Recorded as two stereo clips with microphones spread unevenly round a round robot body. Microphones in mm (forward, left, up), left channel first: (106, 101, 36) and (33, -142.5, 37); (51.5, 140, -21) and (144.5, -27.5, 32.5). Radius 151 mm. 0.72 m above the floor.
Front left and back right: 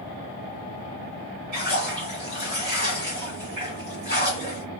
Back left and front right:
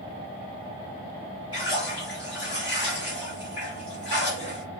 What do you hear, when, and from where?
1.5 s a splash: 160° right, 1.6 m